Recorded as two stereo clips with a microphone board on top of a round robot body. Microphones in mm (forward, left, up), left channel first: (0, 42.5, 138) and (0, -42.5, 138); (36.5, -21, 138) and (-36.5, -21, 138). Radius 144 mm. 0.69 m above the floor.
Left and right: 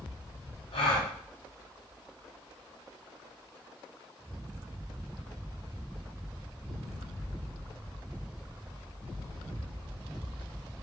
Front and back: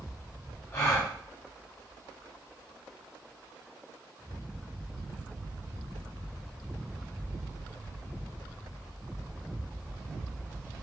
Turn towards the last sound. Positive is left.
turn(degrees=65)